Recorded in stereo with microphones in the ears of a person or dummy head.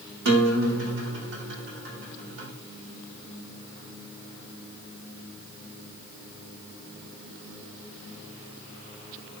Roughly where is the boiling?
No boiling in this recording.